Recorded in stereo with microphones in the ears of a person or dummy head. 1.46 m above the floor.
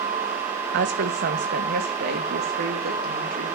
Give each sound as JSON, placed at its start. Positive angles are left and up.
{"t": 0.7, "sound": "a woman speaking", "side_deg": -55, "distance_m": 1.7}